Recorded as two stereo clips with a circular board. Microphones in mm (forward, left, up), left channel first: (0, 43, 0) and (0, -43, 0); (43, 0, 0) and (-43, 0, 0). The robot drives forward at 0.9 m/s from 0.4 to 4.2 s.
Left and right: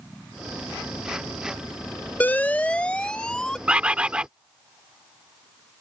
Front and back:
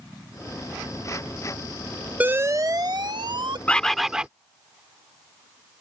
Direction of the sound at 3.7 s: 40° right.